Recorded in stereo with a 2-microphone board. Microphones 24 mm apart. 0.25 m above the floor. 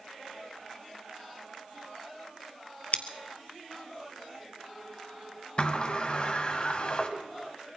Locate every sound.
2.9 s scissors: 55° left (ahead or behind), 1.0 m
5.6 s a sliding door: 40° left (ahead or behind), 1.4 m